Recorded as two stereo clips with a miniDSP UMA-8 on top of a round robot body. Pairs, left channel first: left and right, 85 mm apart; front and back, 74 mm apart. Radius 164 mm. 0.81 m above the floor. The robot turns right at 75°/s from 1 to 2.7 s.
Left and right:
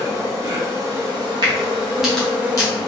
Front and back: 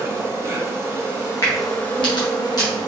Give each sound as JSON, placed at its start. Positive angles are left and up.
{"t": 0.0, "sound": "an insect", "azimuth_deg": -130, "distance_m": 1.7}
{"t": 1.4, "sound": "a crack", "azimuth_deg": -50, "distance_m": 0.8}